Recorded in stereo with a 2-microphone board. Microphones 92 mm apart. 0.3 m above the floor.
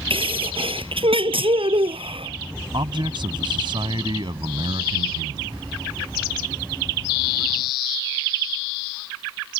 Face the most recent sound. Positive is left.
turn(degrees=-60)  # may be behind; listen again after turning